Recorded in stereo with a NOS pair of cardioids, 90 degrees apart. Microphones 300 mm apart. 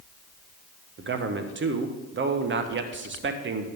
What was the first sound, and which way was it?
A man speaking, 40° right.